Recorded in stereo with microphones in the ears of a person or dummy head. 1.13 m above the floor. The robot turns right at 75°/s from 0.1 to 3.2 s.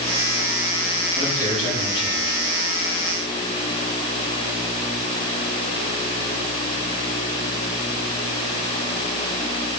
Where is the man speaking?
Straight ahead, 7.5 m; by 2.5 s 100° left, 7.5 m.